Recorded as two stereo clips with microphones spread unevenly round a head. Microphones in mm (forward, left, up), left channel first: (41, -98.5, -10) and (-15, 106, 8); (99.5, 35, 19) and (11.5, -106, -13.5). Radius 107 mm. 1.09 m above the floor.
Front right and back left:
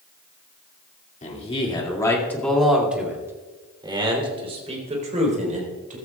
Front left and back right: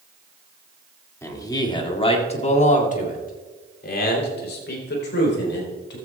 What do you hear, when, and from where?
1.2 s a man speaking: 15° right, 2.5 m; by 6.0 s 55° left, 5 m